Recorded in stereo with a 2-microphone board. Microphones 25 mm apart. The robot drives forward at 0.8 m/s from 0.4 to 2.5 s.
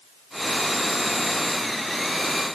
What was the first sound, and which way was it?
Only background noise.